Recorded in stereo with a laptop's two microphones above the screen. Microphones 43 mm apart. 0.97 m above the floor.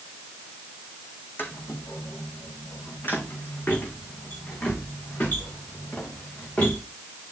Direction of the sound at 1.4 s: 60° left (ahead or behind).